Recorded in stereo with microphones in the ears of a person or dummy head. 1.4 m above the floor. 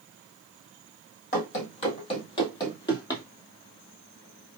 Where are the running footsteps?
40° left (ahead or behind), 2 m; by 3.2 s 15° left (ahead or behind), 1.8 m.